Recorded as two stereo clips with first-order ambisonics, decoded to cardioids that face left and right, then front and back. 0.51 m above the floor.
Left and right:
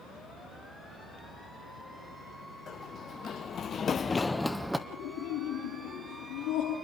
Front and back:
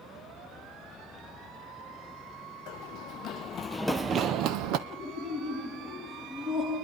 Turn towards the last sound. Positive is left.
turn(degrees=110)